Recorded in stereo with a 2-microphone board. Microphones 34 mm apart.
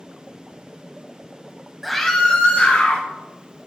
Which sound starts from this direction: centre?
A scream, at 1.8 s.